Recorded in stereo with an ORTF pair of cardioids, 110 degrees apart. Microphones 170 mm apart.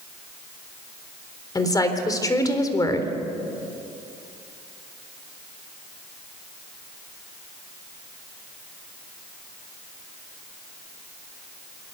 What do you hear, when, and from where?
1.6 s a woman speaking: 20° left, 4 m